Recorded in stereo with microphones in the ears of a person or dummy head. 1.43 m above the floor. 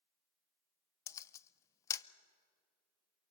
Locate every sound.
1.1 s a camera shutter: 15° left (ahead or behind), 0.6 m